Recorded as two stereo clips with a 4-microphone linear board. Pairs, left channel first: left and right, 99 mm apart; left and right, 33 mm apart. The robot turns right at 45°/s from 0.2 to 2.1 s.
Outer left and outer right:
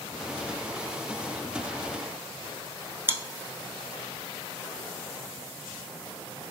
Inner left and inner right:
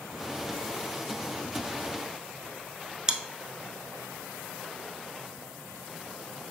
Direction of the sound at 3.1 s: 25° right (ahead or behind).